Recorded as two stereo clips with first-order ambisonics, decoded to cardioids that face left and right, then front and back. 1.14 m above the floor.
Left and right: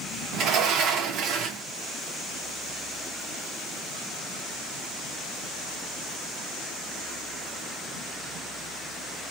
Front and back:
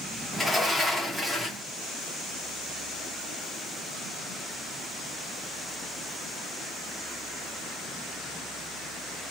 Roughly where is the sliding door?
Right.